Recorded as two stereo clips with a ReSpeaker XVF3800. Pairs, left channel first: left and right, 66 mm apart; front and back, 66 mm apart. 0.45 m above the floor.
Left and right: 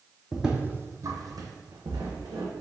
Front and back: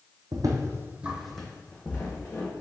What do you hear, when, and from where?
0.3 s footsteps: 175° right, 0.8 m; by 2.6 s 60° right, 1.8 m